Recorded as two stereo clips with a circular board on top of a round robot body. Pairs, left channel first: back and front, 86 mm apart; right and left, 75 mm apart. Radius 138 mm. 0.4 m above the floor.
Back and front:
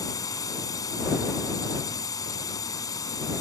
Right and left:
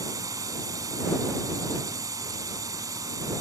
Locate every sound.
0.0 s a drone: 130° left